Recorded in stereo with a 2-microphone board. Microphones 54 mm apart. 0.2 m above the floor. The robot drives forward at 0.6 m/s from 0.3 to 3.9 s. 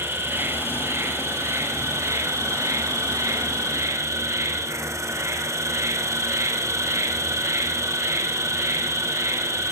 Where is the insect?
50° right (ahead or behind), 3 m; by 9.7 s 65° right (ahead or behind), 2.5 m.